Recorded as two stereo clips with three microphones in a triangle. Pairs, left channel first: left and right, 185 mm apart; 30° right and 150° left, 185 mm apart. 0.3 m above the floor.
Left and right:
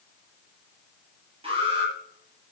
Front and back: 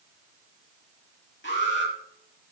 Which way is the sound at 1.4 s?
30° right.